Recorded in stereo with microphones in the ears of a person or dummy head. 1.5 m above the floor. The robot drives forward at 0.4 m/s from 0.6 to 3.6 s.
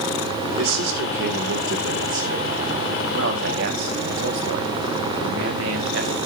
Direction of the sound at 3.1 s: 70° right (ahead or behind).